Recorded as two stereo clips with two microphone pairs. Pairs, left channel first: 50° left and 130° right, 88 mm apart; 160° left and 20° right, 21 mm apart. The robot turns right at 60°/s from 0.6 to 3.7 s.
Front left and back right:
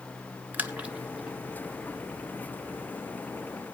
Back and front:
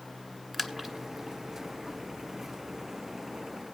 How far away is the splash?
About 1.4 m.